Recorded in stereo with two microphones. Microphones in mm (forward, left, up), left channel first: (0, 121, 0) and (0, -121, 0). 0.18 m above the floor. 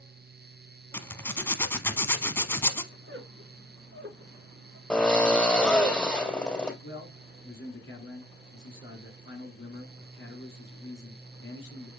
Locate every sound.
0.9 s a zipper: 10° left (ahead or behind), 0.8 m
2.9 s a squeak: 55° right (ahead or behind), 1.3 m
4.9 s a drill: 5° left (ahead or behind), 2 m
6.8 s a man speaking: 50° left (ahead or behind), 2.5 m